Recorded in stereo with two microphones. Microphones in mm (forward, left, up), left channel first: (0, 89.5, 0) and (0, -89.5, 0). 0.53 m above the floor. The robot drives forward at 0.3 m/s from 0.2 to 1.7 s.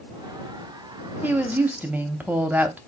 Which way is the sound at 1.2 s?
10° right (ahead or behind).